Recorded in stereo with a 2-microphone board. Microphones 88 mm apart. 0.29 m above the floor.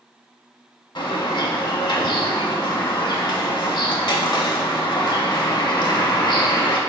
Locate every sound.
0.9 s a bird: 55° left (ahead or behind), 0.5 m